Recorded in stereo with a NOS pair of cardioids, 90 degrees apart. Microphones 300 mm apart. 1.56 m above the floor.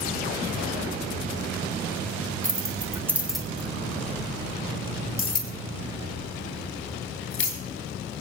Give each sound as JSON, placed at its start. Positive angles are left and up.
{"t": 2.4, "sound": "keys jangling", "azimuth_deg": -30, "distance_m": 2.5}